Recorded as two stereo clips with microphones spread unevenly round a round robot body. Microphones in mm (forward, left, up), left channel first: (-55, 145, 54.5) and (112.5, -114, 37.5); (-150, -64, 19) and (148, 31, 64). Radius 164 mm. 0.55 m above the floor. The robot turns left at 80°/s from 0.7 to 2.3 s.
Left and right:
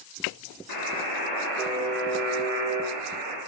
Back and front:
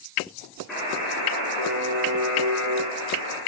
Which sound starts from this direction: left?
A buzzer, at 0.7 s.